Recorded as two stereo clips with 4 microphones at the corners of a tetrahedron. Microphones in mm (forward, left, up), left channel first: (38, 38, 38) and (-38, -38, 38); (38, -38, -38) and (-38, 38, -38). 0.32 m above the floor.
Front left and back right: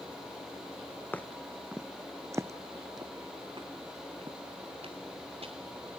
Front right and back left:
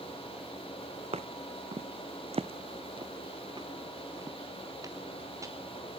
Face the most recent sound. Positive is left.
turn(degrees=-165)